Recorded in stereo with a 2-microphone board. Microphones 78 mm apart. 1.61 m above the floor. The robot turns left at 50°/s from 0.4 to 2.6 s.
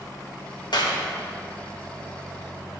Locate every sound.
0.7 s a clap: 65° left (ahead or behind), 1.4 m; by 1.0 s 75° left (ahead or behind), 1.4 m